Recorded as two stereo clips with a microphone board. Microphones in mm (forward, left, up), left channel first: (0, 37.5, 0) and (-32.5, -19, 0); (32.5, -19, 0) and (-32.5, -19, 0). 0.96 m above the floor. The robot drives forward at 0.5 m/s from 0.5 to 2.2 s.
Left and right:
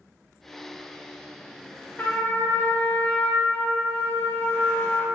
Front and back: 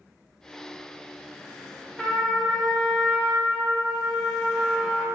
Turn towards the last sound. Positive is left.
turn(degrees=90)